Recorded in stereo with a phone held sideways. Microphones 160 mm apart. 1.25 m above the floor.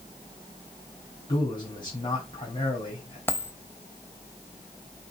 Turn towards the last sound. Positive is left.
turn(degrees=15)  # may be behind; listen again after turning